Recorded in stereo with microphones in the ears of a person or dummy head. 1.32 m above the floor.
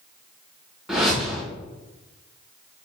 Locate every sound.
0.9 s a whoosh: centre (ahead or behind), 1.0 m